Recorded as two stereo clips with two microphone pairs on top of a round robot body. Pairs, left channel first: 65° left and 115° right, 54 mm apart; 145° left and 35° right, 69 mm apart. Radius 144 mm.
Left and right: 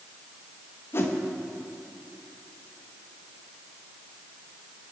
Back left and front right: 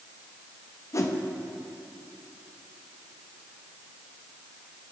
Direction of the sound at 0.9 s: 105° left.